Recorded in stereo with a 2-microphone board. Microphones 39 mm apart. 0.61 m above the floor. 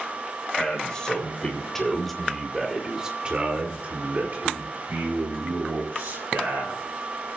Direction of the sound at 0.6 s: 25° left (ahead or behind).